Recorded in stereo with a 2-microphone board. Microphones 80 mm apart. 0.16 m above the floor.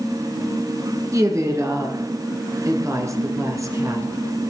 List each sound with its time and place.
1.1 s a woman speaking: 40° right (ahead or behind), 2.5 m